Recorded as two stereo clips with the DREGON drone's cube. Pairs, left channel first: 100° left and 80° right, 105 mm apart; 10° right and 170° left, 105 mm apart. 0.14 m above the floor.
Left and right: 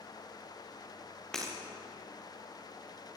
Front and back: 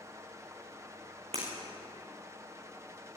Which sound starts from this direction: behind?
Breaking glass, at 1.3 s.